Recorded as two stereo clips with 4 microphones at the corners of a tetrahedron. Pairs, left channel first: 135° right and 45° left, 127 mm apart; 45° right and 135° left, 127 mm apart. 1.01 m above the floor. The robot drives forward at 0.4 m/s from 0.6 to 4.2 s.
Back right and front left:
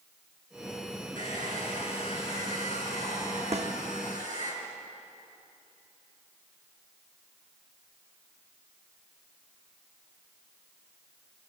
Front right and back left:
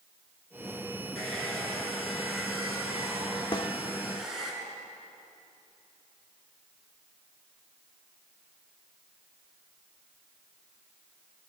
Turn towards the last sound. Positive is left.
turn(degrees=15)